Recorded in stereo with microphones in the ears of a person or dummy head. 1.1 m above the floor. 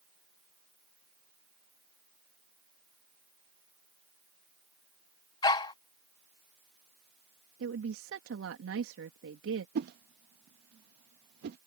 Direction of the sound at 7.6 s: 70° right (ahead or behind).